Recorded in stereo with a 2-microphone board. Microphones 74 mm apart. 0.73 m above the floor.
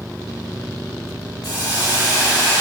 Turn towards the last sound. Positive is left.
turn(degrees=60)  # may be behind; listen again after turning